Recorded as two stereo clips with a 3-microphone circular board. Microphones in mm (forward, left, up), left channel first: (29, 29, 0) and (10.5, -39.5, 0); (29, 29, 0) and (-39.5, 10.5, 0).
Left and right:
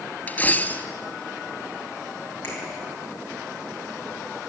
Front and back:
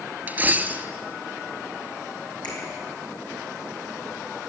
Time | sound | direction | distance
0.3 | a dropped coin | 135° left | 0.8 m
2.4 | a finger snap | 10° left | 7.5 m